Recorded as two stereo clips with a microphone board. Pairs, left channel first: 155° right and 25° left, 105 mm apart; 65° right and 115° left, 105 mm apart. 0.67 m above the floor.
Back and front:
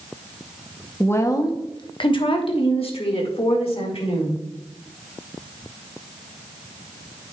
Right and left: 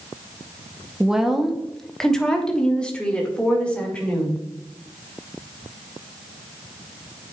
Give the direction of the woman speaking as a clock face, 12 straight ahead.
6 o'clock.